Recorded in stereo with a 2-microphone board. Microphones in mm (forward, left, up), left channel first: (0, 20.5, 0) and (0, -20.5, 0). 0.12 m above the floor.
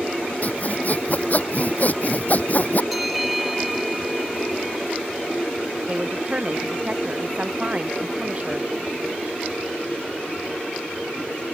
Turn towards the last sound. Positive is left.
turn(degrees=-35)  # may be behind; listen again after turning